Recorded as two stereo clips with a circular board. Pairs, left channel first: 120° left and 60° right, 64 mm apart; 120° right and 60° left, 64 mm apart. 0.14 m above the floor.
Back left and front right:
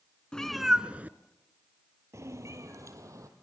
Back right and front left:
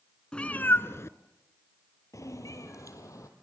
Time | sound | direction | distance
0.3 | a cat meowing | straight behind | 0.8 m